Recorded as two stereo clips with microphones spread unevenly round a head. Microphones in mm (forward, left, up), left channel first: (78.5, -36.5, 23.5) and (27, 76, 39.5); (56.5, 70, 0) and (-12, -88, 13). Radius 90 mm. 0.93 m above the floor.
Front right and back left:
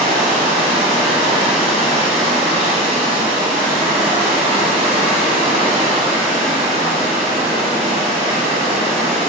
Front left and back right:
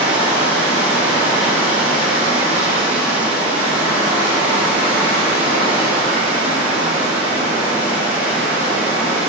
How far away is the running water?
About 0.9 m.